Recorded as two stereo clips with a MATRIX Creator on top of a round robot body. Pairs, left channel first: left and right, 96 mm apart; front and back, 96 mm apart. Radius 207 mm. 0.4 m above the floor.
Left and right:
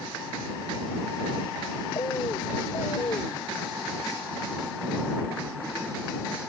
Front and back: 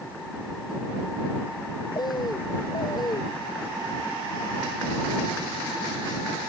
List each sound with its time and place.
1.9 s a bird: 45° left